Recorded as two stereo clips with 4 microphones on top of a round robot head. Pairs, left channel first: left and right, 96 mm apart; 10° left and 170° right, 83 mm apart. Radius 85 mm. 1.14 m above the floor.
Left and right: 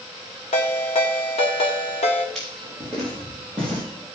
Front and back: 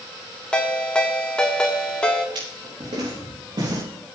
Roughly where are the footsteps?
Behind.